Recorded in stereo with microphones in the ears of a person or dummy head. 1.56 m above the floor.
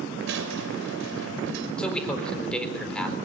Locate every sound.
0.2 s a squeak: 65° right (ahead or behind), 2.5 m
1.8 s a man speaking: centre (ahead or behind), 4 m